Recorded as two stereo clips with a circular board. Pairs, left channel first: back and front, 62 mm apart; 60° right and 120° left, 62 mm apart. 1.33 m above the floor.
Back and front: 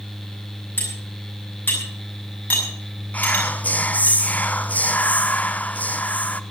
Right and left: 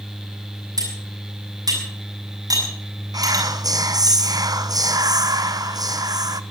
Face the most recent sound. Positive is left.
turn(degrees=115)